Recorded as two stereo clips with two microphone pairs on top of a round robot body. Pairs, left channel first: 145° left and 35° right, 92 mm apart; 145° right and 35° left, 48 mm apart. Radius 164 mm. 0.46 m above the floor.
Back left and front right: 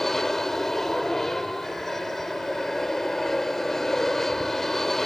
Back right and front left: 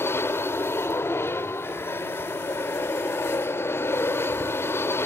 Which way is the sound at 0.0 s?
130° right.